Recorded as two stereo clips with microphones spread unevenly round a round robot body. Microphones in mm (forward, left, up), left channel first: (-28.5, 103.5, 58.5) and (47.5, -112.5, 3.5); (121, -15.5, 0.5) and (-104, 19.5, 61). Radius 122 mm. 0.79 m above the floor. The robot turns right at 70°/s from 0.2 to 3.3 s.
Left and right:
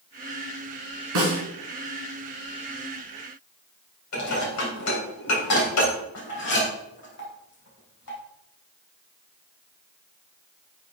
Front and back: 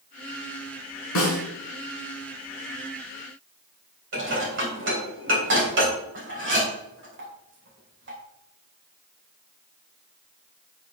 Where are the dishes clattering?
130° left, 3.5 m.